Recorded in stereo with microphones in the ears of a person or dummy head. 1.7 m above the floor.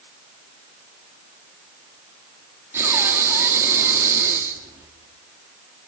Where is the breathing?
20° right (ahead or behind), 2.5 m.